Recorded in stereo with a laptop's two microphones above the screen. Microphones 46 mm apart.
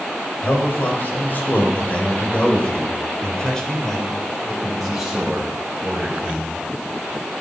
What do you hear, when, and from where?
0.4 s a man speaking: 50° left (ahead or behind), 5 m; by 6.5 s 20° right (ahead or behind), 5 m